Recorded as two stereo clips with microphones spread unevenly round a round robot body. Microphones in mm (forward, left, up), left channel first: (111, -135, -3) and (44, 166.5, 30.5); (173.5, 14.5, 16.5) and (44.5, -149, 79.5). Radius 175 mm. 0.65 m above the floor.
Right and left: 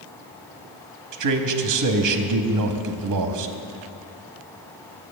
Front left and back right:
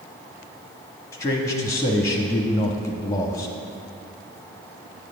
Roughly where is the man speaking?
Left.